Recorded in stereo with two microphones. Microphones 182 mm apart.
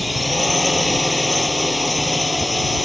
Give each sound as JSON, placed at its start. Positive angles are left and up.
{"t": 0.0, "sound": "a drone", "side_deg": 0}